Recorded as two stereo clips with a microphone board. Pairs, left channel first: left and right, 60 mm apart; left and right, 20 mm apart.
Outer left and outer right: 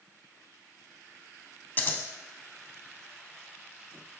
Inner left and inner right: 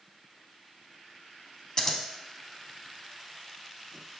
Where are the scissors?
35° left (ahead or behind), 0.5 m.